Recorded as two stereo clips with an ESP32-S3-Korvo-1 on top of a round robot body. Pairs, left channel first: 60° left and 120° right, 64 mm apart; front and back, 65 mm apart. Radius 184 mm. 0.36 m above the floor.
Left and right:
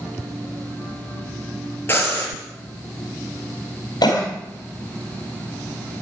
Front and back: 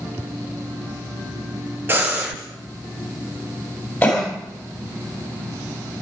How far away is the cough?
About 3.5 m.